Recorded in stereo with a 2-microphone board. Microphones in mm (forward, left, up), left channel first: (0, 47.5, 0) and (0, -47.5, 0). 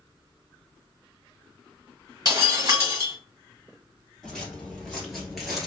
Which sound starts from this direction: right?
Breaking glass, at 2.2 s.